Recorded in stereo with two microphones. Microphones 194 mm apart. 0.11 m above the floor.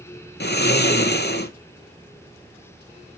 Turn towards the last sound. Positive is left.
turn(degrees=60)  # may be behind; listen again after turning